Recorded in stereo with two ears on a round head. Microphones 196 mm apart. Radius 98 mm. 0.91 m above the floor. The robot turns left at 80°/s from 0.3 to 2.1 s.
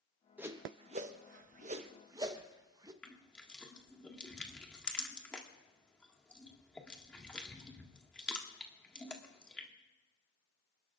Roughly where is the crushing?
Centre.